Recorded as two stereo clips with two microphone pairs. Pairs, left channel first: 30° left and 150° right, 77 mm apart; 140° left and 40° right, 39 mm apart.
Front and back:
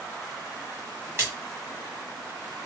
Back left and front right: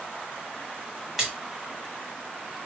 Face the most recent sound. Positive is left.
turn(degrees=-115)